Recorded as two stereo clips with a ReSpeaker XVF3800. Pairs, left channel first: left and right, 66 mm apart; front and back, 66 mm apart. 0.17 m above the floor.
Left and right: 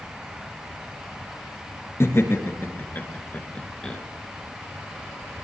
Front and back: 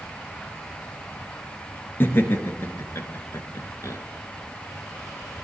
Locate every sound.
2.0 s laughter: 50° left, 3 m; by 4.0 s 15° left, 2.5 m